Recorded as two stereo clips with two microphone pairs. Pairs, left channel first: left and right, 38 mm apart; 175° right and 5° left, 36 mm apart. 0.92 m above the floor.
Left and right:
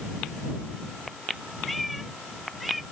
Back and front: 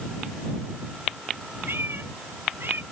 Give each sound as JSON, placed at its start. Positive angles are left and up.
{"t": 1.7, "sound": "a cat meowing", "azimuth_deg": 0}